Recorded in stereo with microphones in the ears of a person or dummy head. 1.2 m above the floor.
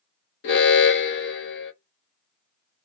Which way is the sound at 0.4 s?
60° left (ahead or behind).